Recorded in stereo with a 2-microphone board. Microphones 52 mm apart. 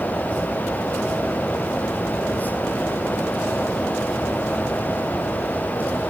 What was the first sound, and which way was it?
Only background noise.